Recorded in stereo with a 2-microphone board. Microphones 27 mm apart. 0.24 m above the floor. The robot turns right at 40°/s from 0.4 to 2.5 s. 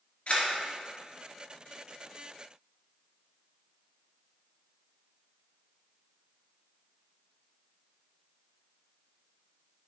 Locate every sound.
0.3 s a camera shutter: 55° left (ahead or behind), 2 m; by 0.5 s 60° left (ahead or behind), 2 m